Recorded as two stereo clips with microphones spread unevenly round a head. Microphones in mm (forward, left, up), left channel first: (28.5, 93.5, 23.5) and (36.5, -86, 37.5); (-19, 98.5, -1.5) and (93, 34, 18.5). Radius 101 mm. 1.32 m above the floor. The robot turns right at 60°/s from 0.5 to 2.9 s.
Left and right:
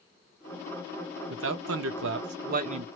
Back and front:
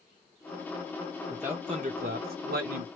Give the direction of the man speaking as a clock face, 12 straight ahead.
4 o'clock.